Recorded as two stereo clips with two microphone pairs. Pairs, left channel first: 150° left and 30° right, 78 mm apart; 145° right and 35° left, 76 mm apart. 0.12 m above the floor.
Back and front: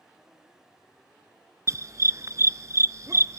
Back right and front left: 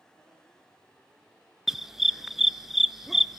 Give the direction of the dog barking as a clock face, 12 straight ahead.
2 o'clock.